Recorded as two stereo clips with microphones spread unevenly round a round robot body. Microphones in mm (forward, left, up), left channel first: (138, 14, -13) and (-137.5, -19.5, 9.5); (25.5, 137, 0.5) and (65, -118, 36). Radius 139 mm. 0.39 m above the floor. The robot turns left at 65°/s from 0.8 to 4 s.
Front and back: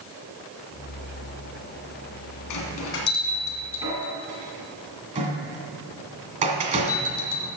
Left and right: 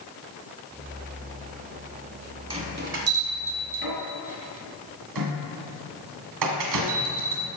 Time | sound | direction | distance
2.5 | a bell | 10° right | 1.8 m